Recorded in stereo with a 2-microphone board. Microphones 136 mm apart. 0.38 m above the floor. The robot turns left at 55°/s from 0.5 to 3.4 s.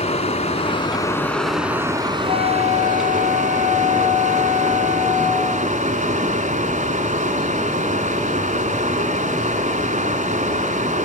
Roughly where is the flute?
Right.